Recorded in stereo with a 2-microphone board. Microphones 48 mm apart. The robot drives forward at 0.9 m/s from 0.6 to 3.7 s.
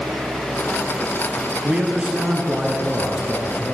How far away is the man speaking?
About 1.3 m.